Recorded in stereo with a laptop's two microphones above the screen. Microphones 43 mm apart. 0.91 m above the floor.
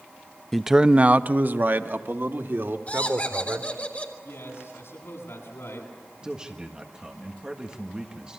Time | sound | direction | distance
0.5 | a man speaking | 5° left (ahead or behind) | 0.5 m
2.9 | laughter | 35° left (ahead or behind) | 3.5 m
4.2 | a man speaking | 80° left | 9 m
6.2 | a man speaking | 20° right (ahead or behind) | 1.5 m